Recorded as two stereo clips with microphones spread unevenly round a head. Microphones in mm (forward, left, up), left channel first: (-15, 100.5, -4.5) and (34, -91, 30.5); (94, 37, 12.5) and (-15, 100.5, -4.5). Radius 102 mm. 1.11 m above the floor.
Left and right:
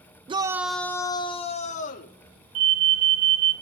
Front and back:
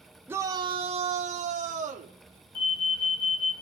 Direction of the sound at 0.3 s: 145° right.